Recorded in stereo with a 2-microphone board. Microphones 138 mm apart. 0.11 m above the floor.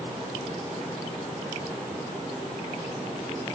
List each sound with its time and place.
Only background noise.